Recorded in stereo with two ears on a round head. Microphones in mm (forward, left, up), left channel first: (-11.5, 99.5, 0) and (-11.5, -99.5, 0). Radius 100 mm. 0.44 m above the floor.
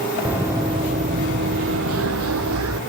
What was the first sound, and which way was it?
Running footsteps, 5° right (ahead or behind).